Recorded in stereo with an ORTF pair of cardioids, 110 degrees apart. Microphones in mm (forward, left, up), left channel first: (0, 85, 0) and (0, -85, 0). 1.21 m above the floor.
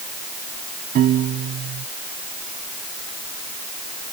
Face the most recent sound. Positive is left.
turn(degrees=-55)